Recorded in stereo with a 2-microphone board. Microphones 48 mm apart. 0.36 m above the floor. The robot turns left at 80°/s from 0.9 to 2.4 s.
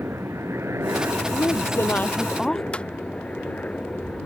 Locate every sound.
0.0 s a helicopter: 95° right; by 4.2 s 145° left
1.3 s a woman speaking: 95° left; by 2.6 s 5° left
2.7 s footsteps: 25° left (ahead or behind)